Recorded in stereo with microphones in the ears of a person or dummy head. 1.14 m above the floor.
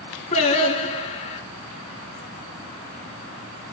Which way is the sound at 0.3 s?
35° left (ahead or behind).